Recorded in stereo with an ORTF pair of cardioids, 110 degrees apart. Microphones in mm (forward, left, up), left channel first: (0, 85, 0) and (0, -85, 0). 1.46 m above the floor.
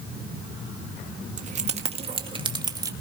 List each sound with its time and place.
1.4 s keys jangling: 45° right, 1.8 m; by 2.9 s 20° right, 1.8 m